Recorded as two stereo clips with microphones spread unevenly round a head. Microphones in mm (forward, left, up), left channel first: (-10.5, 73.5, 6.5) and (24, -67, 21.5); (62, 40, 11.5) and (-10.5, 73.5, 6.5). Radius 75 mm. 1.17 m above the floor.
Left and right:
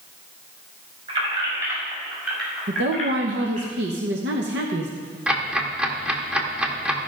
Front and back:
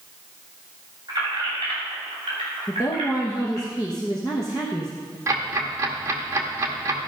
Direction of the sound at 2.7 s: 95° right.